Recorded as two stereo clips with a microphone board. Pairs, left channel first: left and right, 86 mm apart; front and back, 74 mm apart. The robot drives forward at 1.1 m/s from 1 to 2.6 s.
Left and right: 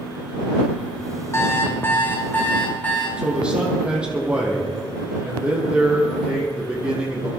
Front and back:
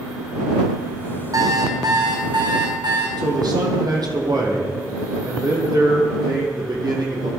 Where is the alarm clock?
145° left, 2.0 m; by 3.1 s 160° left, 3 m.